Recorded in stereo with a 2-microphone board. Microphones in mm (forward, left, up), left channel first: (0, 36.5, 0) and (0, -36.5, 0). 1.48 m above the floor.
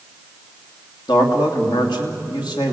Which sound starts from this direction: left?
A man speaking, at 1.1 s.